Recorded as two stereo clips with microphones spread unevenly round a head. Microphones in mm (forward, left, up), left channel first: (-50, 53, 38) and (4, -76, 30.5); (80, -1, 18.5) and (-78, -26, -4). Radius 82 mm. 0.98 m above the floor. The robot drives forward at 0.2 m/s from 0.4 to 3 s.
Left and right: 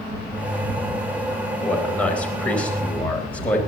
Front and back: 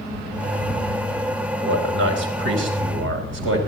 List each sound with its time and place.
1.6 s a man speaking: 165° right, 4 m